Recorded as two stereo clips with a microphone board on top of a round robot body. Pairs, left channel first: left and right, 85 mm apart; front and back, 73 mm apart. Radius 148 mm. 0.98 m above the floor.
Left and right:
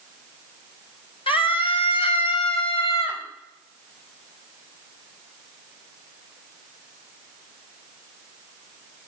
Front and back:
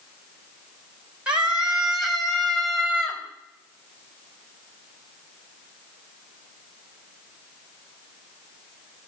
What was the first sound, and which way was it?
A scream, 105° left.